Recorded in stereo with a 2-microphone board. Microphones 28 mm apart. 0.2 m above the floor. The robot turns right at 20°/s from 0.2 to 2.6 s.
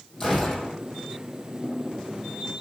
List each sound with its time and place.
0.2 s a gunshot: 15° left (ahead or behind), 4 m; by 0.8 s 30° left (ahead or behind), 4 m